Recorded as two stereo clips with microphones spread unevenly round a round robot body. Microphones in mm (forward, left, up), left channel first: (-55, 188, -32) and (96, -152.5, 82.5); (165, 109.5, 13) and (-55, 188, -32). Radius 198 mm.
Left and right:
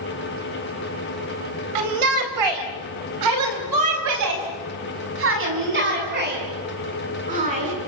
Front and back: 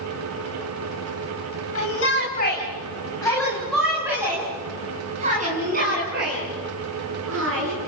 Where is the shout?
75° right, 4.5 m; by 7.8 s 140° right, 9 m.